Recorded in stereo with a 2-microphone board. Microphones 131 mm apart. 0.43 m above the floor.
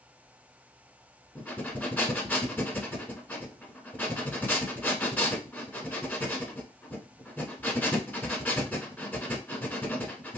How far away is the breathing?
About 0.7 m.